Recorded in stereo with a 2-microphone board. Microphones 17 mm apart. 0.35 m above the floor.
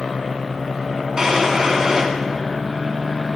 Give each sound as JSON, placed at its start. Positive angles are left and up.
{"t": 1.2, "sound": "a drawer", "side_deg": -40, "distance_m": 2.0}